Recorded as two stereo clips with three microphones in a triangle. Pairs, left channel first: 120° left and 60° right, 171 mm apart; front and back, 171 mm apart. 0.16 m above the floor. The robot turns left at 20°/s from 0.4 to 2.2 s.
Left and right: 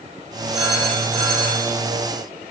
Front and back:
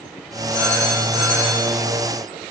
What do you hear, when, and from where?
0.5 s a phone ringing: 105° right, 3.5 m; by 1.7 s 125° right, 3.5 m